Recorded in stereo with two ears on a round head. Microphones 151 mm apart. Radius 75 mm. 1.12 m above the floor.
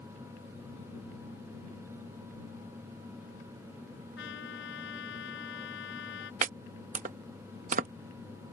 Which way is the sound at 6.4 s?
45° right (ahead or behind).